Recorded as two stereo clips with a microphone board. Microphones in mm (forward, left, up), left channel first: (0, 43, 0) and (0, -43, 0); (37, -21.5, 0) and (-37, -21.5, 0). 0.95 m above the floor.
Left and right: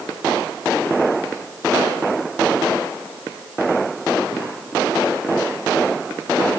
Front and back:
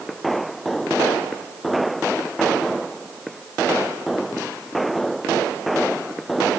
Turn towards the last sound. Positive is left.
No sound to turn to.